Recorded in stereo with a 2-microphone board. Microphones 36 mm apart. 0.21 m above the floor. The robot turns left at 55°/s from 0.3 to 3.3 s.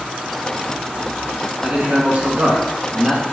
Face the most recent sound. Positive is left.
turn(degrees=-150)